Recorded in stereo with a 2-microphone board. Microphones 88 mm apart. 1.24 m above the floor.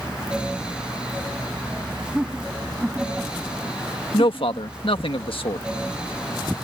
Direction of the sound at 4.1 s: 85° left.